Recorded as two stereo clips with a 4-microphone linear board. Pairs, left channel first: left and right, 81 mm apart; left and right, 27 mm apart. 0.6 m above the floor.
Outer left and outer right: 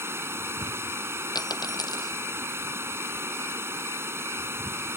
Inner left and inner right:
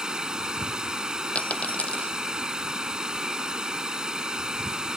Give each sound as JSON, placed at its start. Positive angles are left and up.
{"t": 0.0, "sound": "running water", "side_deg": -30}
{"t": 1.4, "sound": "a dropped coin", "side_deg": 55}